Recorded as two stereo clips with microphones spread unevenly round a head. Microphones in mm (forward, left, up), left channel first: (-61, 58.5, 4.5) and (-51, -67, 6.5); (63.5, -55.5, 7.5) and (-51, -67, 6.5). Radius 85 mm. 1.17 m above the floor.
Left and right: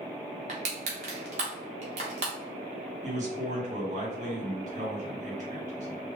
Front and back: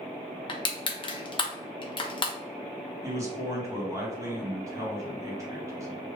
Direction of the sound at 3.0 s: 110° right.